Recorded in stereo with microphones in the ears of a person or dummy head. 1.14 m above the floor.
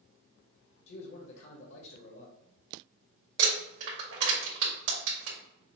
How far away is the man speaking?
About 1.3 m.